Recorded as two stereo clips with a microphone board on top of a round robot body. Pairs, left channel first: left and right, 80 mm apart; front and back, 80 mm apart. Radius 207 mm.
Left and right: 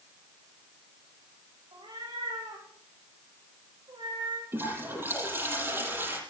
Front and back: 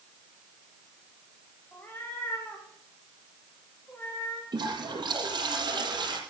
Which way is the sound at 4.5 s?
150° right.